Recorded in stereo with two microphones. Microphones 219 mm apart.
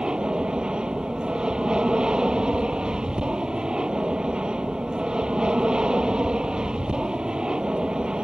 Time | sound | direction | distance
0.0 | an aircraft | 5° right (ahead or behind) | ?